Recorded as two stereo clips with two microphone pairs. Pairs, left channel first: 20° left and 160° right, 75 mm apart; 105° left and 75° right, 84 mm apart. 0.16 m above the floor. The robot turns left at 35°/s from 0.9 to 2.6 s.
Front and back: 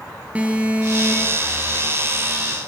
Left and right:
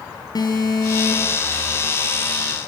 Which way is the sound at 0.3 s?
130° left.